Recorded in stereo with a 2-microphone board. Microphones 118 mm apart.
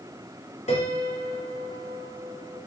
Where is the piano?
80° left, 4 m.